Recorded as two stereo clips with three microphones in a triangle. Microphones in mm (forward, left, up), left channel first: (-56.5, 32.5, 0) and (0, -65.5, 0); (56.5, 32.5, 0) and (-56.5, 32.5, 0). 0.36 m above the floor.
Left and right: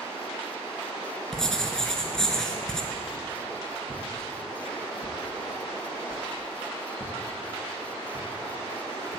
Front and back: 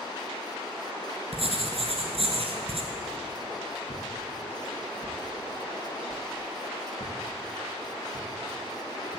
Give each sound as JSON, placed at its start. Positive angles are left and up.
{"t": 1.3, "sound": "writing", "azimuth_deg": -155, "distance_m": 1.4}
{"t": 2.9, "sound": "a whoosh", "azimuth_deg": 15, "distance_m": 3.0}